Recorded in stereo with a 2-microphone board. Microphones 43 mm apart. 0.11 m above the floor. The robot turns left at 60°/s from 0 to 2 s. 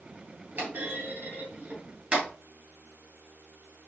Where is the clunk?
45° right (ahead or behind), 2.5 m; by 2.3 s 25° right (ahead or behind), 2.5 m.